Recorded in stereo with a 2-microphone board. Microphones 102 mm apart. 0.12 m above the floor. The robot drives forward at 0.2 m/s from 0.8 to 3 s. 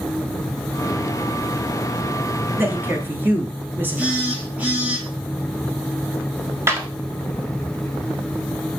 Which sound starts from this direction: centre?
A phone buzzing, at 4.0 s.